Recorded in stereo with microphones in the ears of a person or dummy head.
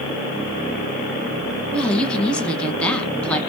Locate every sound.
1.7 s a woman speaking: 5° left (ahead or behind), 0.7 m